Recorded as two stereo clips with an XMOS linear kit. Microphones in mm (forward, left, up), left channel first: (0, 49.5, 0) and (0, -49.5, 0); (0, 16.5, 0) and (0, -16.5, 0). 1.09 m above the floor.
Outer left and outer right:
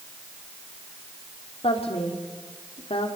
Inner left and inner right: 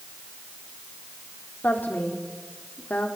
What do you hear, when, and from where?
1.6 s a woman speaking: 80° left, 3.5 m